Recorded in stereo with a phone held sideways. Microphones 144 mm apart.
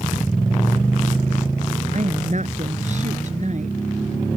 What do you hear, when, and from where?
1.9 s a woman speaking: 55° right (ahead or behind)